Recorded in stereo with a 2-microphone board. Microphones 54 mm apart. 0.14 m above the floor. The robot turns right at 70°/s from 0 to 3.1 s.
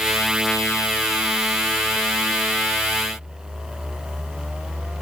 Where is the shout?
I don't hear a shout.